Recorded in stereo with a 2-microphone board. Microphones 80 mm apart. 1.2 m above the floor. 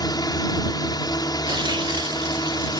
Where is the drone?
55° left (ahead or behind).